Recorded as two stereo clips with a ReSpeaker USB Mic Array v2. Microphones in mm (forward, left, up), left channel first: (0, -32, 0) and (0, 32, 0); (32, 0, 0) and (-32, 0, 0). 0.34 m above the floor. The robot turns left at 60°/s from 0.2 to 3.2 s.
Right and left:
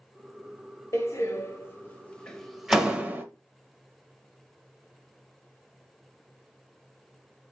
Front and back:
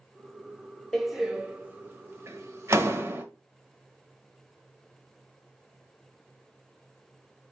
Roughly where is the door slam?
Right.